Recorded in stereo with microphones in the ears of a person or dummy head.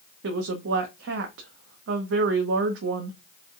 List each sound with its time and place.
0.2 s a woman speaking: 75° right (ahead or behind), 0.8 m